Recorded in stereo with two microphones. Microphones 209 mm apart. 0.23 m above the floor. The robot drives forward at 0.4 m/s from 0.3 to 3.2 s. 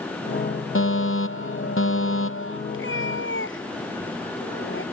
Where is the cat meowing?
75° left (ahead or behind); by 4.8 s 70° left (ahead or behind).